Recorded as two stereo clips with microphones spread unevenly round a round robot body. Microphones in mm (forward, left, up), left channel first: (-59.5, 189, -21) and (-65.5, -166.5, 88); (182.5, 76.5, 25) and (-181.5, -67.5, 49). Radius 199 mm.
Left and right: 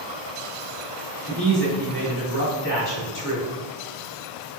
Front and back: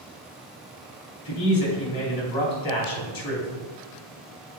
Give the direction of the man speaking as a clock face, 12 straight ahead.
10 o'clock.